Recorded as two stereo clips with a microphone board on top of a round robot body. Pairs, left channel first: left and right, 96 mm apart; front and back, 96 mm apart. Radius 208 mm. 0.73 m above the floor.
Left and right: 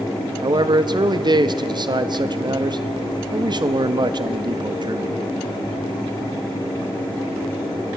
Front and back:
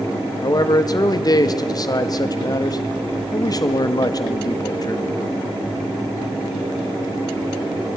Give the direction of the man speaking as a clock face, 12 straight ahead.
2 o'clock.